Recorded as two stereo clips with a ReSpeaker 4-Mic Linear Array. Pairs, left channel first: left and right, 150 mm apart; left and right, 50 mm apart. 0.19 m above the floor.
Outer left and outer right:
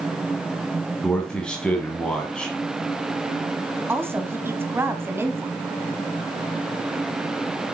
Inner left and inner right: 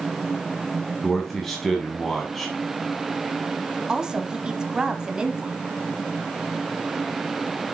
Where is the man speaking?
5° left (ahead or behind), 1.2 m.